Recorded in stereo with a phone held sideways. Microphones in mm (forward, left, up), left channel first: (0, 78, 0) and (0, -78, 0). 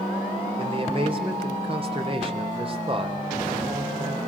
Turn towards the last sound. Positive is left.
turn(degrees=-35)  # may be behind; listen again after turning